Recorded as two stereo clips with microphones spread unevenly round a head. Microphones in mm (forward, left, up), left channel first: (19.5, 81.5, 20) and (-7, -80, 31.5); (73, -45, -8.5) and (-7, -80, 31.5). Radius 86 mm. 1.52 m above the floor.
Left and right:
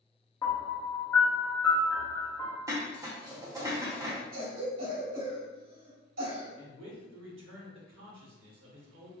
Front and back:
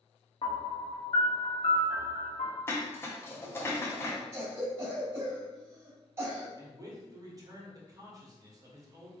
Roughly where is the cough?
Right.